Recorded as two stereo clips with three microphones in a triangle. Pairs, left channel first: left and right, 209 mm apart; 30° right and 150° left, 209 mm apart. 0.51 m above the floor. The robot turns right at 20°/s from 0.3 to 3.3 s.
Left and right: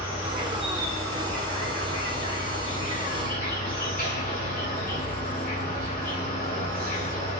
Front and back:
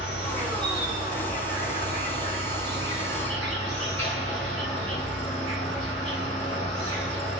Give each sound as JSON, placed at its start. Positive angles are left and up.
{"t": 0.0, "sound": "an insect", "azimuth_deg": -5, "distance_m": 2.0}